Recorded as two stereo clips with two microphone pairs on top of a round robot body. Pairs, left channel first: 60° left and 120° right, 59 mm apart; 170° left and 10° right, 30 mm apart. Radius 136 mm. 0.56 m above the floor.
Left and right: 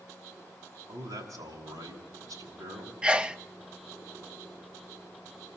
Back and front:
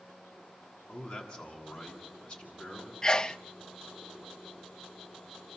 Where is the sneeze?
170° right, 0.7 m.